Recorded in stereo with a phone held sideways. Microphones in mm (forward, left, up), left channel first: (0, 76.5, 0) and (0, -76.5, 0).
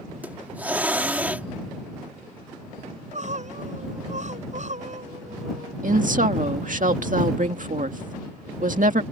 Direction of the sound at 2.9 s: 50° right (ahead or behind).